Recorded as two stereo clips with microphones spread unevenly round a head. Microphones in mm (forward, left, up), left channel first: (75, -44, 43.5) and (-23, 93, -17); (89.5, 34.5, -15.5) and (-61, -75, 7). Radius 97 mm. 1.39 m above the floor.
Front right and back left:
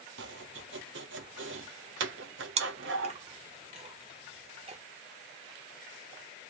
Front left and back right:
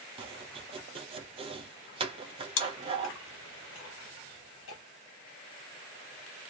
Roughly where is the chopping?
Behind.